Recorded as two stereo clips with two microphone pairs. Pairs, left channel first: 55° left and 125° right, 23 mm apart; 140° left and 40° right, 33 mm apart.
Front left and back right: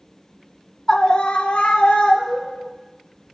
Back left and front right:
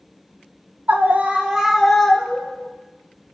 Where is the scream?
15° right, 0.7 m; by 2.7 s 60° left, 1.3 m.